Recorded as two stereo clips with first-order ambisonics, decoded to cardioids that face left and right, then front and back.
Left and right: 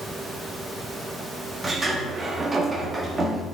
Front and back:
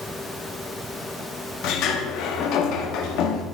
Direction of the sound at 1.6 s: 15° right.